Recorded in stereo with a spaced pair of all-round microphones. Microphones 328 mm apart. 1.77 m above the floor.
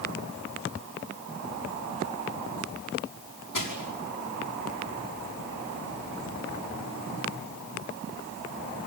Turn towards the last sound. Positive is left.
turn(degrees=70)  # may be behind; listen again after turning